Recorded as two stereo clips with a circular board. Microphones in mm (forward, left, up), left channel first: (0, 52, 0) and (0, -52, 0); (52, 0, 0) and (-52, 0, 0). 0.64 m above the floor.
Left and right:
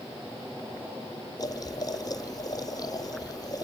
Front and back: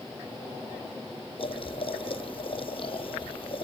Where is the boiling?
35° left, 0.6 m.